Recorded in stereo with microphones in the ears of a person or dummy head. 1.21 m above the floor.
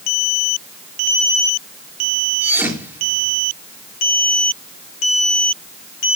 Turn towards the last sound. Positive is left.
turn(degrees=-15)  # may be behind; listen again after turning